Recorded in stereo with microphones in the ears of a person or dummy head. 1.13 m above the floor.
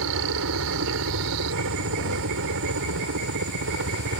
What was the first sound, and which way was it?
A helicopter, 70° right (ahead or behind).